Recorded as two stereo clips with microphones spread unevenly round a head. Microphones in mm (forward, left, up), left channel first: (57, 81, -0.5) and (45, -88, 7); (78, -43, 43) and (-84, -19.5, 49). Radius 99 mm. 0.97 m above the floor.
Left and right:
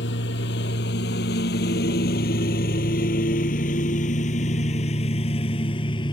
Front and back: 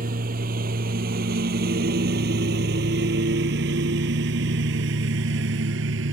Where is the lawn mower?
125° left; by 6.1 s 155° left.